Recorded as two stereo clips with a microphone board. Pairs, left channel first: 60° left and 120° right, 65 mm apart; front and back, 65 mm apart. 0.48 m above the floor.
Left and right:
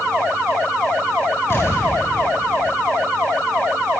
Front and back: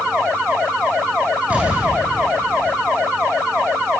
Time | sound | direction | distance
1.5 | an explosion | 110° left | 7.5 m